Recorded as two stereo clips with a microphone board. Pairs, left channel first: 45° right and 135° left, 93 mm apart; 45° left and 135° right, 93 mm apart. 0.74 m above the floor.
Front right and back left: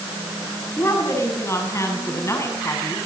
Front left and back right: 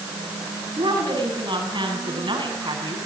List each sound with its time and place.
0.8 s a woman speaking: 105° right, 7 m